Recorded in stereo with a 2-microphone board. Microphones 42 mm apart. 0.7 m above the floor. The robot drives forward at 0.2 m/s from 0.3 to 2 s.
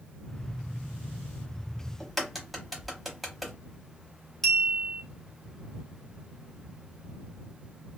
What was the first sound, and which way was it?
A crack, centre (ahead or behind).